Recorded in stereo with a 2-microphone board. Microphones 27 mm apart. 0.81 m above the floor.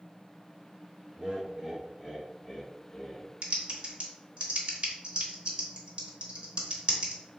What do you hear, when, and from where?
1.2 s laughter: 30° right (ahead or behind), 1.0 m; by 3.3 s 20° left (ahead or behind), 1.7 m
3.4 s typing on a keyboard: 45° right (ahead or behind), 0.8 m